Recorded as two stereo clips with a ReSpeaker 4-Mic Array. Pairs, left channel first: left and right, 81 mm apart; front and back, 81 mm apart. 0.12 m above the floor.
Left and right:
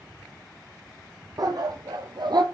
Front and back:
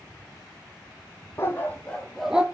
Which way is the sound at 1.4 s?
55° right.